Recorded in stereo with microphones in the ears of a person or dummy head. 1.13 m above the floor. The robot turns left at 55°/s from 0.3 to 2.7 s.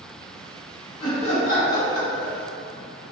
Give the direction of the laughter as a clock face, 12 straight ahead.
7 o'clock.